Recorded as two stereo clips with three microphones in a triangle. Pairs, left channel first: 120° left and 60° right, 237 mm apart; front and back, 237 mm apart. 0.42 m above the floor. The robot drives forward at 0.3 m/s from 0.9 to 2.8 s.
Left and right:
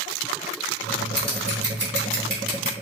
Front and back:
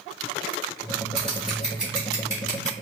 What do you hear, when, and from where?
1.2 s scissors: 85° right, 1.5 m; by 2.7 s 105° right, 1.5 m